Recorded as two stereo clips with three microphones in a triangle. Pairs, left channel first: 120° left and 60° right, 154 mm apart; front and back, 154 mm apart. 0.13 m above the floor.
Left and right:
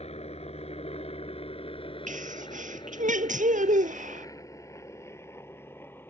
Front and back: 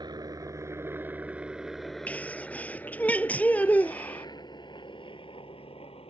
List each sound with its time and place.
0.0 s a helicopter: 130° left; by 6.1 s 45° left
2.1 s a sneeze: 80° right